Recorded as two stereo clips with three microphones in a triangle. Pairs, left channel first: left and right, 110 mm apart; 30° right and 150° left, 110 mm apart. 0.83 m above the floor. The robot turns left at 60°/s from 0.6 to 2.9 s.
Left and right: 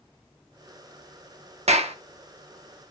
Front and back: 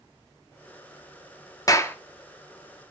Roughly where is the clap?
Right.